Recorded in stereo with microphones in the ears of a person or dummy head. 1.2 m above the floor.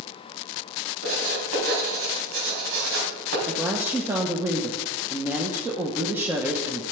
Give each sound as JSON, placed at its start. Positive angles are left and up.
{"t": 1.0, "sound": "writing", "side_deg": -80, "distance_m": 4.0}
{"t": 3.5, "sound": "a woman speaking", "side_deg": -15, "distance_m": 1.0}